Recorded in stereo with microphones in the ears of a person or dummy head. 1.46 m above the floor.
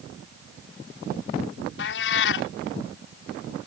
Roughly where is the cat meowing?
Left.